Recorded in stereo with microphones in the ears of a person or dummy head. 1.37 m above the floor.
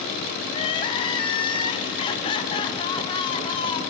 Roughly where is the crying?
Left.